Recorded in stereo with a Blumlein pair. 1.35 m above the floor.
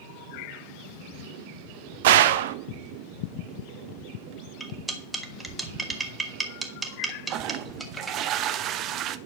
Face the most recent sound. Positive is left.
turn(degrees=-35)